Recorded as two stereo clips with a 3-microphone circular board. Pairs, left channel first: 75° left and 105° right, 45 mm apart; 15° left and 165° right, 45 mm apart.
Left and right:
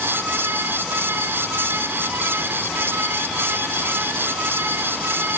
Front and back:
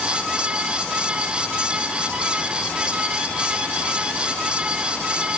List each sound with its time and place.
Only background noise.